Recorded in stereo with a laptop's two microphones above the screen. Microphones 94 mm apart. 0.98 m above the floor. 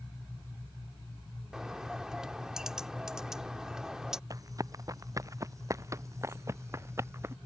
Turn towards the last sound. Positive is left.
turn(degrees=-30)  # may be behind; listen again after turning